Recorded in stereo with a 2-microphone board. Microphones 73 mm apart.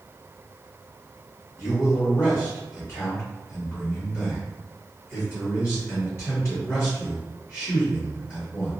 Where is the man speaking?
35° left (ahead or behind), 1.3 m.